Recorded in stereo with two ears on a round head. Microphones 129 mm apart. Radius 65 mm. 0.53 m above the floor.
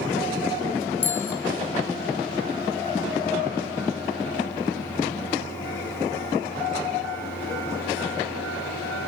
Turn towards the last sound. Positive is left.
turn(degrees=15)  # may be behind; listen again after turning